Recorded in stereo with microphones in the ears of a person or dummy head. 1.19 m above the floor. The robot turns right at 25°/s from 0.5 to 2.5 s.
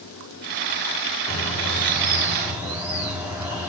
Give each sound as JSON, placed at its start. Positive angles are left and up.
{"t": 1.3, "sound": "a bird", "azimuth_deg": 170, "distance_m": 5.0}